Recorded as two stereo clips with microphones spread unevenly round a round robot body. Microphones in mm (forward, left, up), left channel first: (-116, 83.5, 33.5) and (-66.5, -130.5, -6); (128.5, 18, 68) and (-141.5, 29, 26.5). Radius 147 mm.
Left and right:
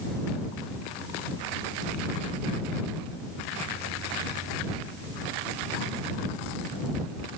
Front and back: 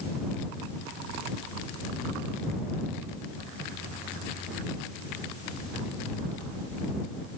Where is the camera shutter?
I don't hear a camera shutter.